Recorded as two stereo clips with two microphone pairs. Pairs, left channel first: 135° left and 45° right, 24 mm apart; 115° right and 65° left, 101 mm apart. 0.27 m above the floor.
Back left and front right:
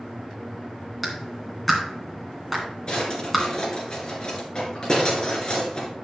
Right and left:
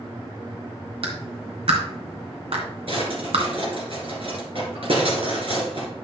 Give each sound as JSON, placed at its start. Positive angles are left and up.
{"t": 1.0, "sound": "a clap", "azimuth_deg": 55, "distance_m": 2.0}
{"t": 2.9, "sound": "a drawer", "azimuth_deg": 90, "distance_m": 2.5}